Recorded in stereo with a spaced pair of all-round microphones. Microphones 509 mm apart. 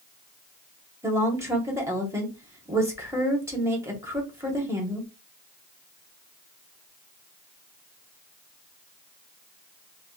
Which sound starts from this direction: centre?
A woman speaking, at 1.0 s.